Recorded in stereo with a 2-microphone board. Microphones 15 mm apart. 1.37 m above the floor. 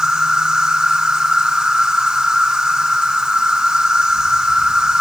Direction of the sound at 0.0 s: 65° right (ahead or behind).